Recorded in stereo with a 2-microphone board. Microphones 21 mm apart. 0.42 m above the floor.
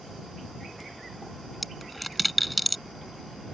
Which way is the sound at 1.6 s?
Centre (ahead or behind).